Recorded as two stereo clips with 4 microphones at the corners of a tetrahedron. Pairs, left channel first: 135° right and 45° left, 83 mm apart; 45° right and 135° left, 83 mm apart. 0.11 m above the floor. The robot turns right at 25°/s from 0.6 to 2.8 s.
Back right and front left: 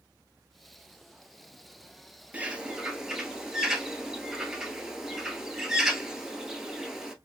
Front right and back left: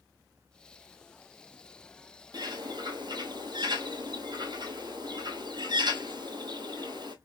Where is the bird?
115° left, 0.9 m; by 7.2 s 125° left, 0.9 m.